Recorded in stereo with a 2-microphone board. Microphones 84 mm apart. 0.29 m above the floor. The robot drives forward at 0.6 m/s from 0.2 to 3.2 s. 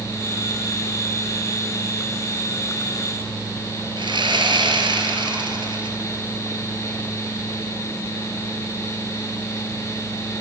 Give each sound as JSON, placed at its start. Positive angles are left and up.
{"t": 4.0, "sound": "sawing", "side_deg": -80, "distance_m": 4.0}